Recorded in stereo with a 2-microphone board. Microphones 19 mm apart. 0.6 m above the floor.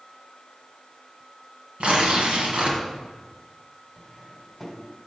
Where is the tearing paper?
70° right (ahead or behind), 1.4 m.